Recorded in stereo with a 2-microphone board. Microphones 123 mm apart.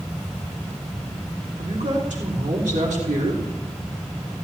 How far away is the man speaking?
About 3 m.